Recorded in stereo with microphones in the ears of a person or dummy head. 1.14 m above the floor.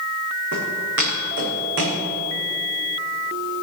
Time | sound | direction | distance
0.5 | footsteps | 75° right (ahead or behind) | 5 m